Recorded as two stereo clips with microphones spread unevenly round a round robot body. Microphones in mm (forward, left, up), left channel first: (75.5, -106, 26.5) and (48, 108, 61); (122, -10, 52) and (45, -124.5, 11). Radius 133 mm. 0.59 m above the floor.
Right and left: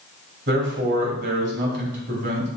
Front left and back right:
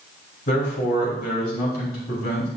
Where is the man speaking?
60° left, 2.5 m.